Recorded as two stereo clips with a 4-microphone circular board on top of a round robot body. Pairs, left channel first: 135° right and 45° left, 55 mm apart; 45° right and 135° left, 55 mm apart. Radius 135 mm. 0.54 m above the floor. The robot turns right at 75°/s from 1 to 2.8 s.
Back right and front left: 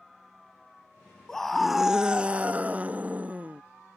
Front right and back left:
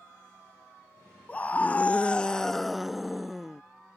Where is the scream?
65° right; by 3.6 s 50° left.